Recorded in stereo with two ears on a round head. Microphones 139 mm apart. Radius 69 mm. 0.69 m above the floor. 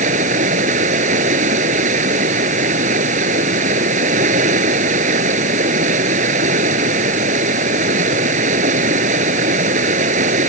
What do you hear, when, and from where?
0.0 s running water: 50° right (ahead or behind)